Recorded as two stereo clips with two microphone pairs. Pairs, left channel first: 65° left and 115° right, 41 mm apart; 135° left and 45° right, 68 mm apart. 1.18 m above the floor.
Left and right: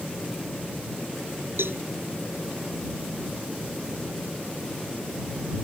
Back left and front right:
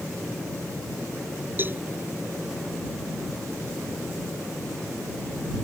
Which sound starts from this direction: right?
A cowbell, at 1.6 s.